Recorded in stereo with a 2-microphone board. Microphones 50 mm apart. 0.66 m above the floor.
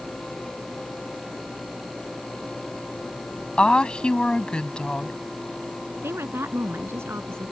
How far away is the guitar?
No guitar in this recording.